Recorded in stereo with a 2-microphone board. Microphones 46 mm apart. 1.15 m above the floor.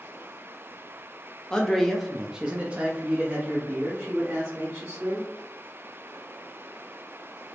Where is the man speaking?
15° left (ahead or behind), 0.8 m; by 5.3 s 60° right (ahead or behind), 1.7 m.